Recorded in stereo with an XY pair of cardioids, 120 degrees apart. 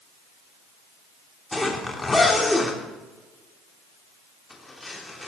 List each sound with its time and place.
1.5 s a zipper: 15° left, 3 m